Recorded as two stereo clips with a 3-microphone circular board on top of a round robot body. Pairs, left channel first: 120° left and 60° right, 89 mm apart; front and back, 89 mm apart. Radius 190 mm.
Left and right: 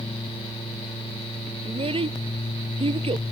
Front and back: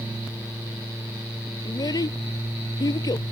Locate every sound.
1.6 s a child speaking: 45° right